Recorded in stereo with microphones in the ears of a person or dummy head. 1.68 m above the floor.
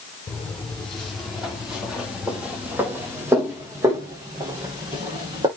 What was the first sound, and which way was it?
Footsteps, 5° left (ahead or behind).